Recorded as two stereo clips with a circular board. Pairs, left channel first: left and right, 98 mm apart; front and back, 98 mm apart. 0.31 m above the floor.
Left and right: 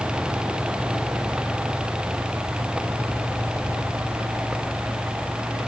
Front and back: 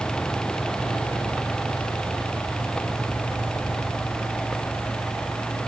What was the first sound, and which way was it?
Only background noise.